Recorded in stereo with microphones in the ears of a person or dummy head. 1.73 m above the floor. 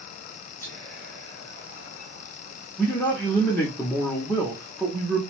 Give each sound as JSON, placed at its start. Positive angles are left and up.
{"t": 0.6, "sound": "whispering", "side_deg": 10, "distance_m": 1.4}
{"t": 2.8, "sound": "a man speaking", "side_deg": 5, "distance_m": 0.6}